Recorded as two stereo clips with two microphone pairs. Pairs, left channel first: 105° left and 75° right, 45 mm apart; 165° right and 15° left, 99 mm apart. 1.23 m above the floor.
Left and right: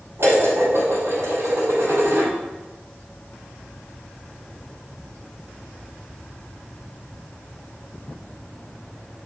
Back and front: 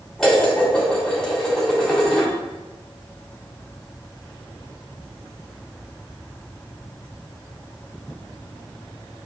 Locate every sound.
0.2 s dishes clattering: 80° right, 3 m